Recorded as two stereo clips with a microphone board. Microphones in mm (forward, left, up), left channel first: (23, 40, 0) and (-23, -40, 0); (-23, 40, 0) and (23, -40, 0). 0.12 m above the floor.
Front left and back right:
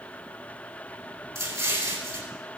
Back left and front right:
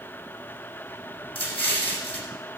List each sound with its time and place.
1.4 s an explosion: 170° right, 2.5 m